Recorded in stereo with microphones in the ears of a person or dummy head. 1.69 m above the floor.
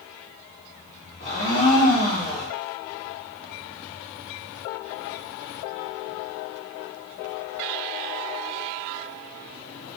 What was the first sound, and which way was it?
A blender, 35° left (ahead or behind).